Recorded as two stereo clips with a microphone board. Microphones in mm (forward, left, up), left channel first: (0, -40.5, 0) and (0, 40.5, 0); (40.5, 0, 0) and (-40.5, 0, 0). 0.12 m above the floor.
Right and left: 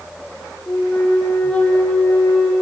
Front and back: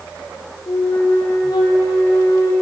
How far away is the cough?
No cough in this recording.